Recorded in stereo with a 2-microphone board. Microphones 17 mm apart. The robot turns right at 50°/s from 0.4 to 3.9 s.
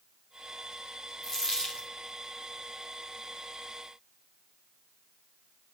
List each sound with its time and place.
1.2 s a dropped coin: 15° left, 3 m; by 1.9 s 50° left, 3 m